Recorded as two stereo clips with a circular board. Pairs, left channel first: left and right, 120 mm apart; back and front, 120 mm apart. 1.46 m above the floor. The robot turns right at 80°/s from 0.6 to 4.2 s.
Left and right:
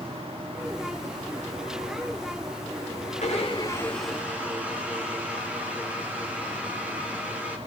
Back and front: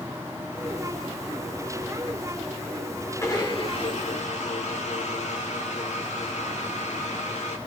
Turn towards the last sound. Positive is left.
turn(degrees=-170)